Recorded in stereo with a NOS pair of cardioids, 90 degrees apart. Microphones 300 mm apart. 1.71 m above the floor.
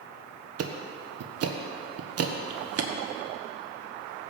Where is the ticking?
55° right, 1.2 m.